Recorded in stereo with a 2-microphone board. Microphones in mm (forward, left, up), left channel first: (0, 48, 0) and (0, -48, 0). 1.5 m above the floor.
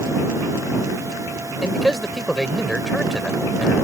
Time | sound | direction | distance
1.6 | a man speaking | centre (ahead or behind) | ?